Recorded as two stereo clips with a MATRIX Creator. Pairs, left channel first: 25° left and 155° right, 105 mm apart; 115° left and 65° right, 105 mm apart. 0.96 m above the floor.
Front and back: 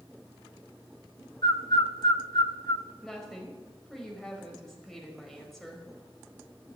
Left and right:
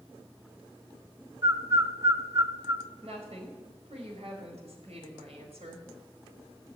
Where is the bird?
15° right, 1.0 m.